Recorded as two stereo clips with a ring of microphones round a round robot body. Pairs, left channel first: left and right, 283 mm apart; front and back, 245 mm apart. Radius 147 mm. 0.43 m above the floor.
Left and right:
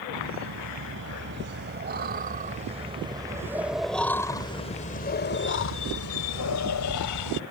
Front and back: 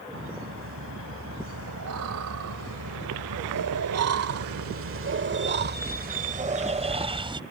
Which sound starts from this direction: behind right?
Laughter, at 0.1 s.